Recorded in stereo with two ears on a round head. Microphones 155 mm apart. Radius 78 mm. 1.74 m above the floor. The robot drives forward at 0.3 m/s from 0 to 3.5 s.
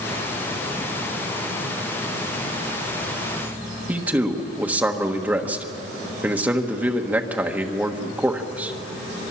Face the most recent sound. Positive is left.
turn(degrees=-10)  # may be behind; listen again after turning